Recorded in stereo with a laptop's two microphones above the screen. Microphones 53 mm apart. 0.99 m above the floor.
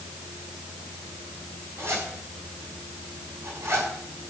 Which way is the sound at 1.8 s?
60° right (ahead or behind).